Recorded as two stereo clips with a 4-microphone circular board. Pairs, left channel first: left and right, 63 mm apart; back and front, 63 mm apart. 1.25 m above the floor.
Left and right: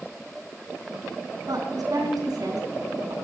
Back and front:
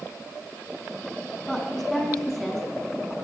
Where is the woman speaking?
95° right, 9.5 m; by 3.1 s 90° right, 10 m.